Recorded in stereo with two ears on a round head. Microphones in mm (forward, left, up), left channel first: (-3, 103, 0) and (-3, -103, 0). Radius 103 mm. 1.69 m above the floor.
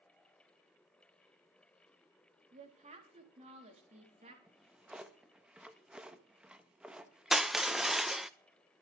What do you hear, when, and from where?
2.5 s a woman speaking: 30° right (ahead or behind), 4 m
4.5 s a drawer: 5° right (ahead or behind), 1.1 m
7.3 s crushing: centre (ahead or behind), 0.6 m